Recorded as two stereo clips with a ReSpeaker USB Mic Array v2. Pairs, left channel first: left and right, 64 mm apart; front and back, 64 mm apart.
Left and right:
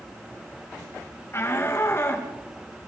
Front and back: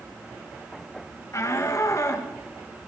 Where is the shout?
40° left, 2.5 m.